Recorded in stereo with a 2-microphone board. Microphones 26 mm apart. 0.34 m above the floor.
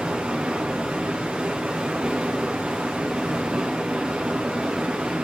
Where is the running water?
40° right (ahead or behind), 3.5 m.